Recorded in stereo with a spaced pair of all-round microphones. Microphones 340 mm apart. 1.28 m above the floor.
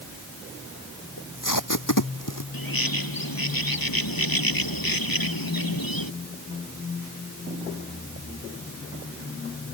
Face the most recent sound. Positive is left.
turn(degrees=85)